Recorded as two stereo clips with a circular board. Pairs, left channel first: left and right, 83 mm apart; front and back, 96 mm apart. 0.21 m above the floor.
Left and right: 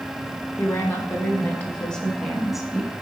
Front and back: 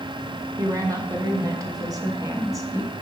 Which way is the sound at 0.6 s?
140° left.